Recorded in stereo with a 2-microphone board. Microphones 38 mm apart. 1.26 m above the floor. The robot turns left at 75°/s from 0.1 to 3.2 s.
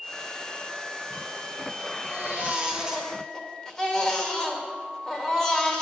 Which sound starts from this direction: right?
A baby crying, at 2.0 s.